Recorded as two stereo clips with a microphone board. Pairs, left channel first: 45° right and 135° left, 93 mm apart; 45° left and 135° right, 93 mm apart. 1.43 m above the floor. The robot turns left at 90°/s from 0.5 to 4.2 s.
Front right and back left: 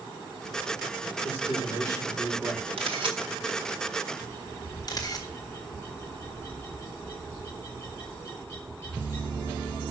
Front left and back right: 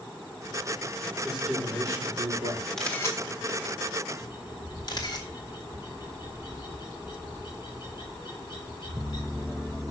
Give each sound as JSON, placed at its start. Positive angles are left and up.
{"t": 1.2, "sound": "a man speaking", "azimuth_deg": -40, "distance_m": 4.5}
{"t": 2.8, "sound": "a camera shutter", "azimuth_deg": 130, "distance_m": 1.7}
{"t": 4.2, "sound": "a bird", "azimuth_deg": 20, "distance_m": 6.0}